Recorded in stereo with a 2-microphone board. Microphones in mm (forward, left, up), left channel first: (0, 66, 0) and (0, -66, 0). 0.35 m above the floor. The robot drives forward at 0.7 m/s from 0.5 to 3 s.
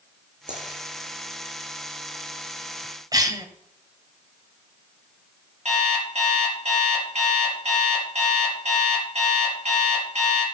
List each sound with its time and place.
0.5 s a dropped coin: 70° right (ahead or behind), 8 m
3.1 s a cough: 30° right (ahead or behind), 1.8 m
5.7 s an alarm clock: 55° right (ahead or behind), 4 m